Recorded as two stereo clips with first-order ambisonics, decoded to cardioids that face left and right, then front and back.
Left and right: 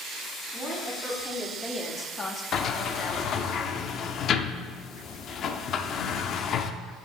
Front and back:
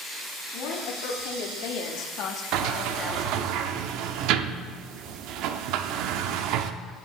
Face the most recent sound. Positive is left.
turn(degrees=145)